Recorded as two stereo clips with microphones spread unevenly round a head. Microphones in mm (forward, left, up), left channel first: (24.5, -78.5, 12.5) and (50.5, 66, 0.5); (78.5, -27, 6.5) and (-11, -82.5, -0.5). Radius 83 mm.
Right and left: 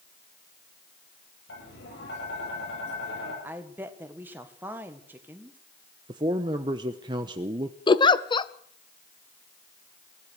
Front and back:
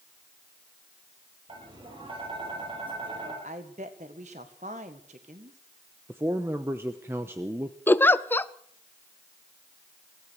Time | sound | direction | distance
1.5 | tapping | 110° right | 8.5 m
3.4 | a woman speaking | 160° left | 1.7 m
6.1 | a man speaking | 140° left | 0.8 m
7.9 | a giggle | 40° right | 0.9 m